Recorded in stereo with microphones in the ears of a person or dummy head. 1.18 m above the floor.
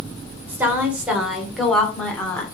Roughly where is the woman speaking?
Centre.